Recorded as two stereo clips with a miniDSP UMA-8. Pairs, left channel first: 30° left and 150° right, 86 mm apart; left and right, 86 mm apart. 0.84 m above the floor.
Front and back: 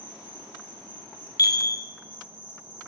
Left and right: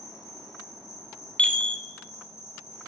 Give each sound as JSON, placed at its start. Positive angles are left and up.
{"t": 0.0, "sound": "an insect", "azimuth_deg": -135, "distance_m": 2.5}
{"t": 1.4, "sound": "a chime", "azimuth_deg": 20, "distance_m": 0.6}